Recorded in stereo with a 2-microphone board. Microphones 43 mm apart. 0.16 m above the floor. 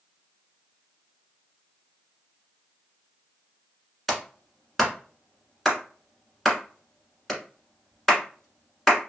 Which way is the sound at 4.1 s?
Centre (ahead or behind).